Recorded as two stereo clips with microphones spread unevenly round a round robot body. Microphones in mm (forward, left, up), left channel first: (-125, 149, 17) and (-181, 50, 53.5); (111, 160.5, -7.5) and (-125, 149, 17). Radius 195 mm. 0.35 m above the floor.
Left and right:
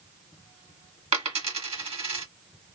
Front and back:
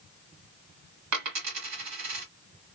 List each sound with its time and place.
1.1 s a dropped coin: 160° right, 1.4 m